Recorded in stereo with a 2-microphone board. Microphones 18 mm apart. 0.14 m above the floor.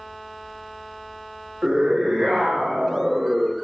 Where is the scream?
60° right (ahead or behind), 5.5 m.